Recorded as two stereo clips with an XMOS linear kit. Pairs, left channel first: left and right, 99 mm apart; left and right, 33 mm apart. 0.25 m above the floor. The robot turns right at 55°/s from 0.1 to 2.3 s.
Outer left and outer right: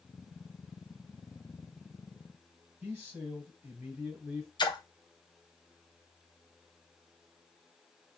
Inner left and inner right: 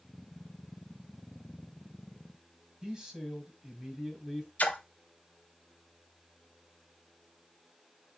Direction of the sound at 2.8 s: 20° right (ahead or behind).